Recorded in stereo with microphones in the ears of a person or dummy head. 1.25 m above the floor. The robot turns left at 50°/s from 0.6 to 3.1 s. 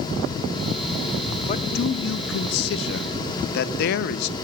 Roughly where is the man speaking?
Behind left.